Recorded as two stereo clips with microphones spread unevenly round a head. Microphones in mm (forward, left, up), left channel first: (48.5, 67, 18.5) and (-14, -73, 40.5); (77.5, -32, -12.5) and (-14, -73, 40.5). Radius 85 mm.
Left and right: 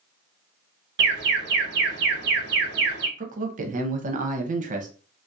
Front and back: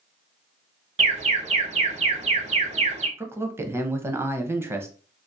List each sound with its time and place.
1.0 s an alarm: 125° right, 0.7 m
3.2 s a man speaking: 75° right, 0.6 m